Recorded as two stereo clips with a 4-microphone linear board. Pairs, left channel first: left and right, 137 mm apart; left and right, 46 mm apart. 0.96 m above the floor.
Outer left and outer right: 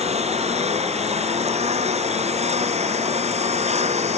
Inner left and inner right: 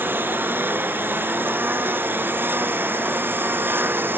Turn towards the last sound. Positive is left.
turn(degrees=-55)  # may be behind; listen again after turning